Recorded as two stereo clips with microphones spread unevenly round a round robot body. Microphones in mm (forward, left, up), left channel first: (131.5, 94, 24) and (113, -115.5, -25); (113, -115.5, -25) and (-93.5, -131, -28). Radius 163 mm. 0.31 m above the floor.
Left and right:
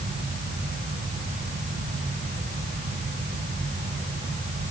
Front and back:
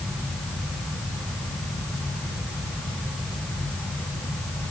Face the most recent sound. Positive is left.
No sound to turn to.